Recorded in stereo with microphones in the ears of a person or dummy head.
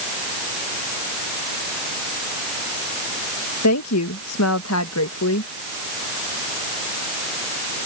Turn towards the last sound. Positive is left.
turn(degrees=85)